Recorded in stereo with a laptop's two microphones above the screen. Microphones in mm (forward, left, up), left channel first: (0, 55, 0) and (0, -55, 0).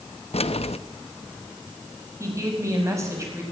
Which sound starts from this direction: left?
Keys jangling, at 0.3 s.